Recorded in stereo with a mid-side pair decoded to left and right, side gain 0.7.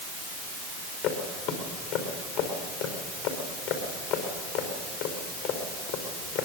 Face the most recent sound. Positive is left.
turn(degrees=70)